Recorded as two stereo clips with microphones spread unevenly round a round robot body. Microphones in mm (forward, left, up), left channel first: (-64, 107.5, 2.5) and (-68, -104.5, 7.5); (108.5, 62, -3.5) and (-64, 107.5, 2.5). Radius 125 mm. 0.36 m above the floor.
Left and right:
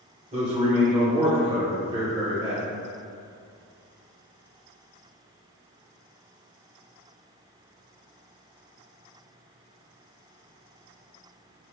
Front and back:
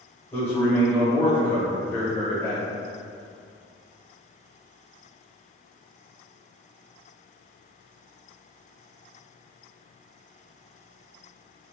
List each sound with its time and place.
0.3 s a man speaking: 75° right, 1.0 m